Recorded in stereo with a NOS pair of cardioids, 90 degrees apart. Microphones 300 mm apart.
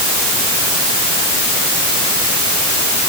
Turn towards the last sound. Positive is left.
No sound to turn to.